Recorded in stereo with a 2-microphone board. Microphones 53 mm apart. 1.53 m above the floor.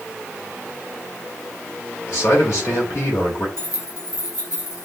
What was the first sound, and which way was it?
A man speaking, 75° left (ahead or behind).